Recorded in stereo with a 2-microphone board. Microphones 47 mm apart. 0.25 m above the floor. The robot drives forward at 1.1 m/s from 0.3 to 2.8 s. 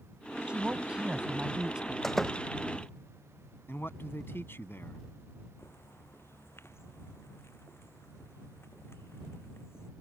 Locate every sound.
0.5 s a woman speaking: 25° right (ahead or behind); by 1.9 s 15° right (ahead or behind)
2.0 s a door slam: 5° left (ahead or behind)
3.7 s a man speaking: 50° left (ahead or behind)
5.6 s a bird: 55° left (ahead or behind)